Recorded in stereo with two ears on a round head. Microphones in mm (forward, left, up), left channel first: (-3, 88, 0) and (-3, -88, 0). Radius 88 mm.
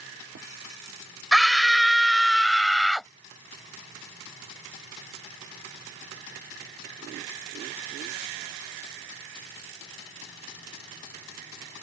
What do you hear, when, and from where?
1.3 s a scream: centre (ahead or behind)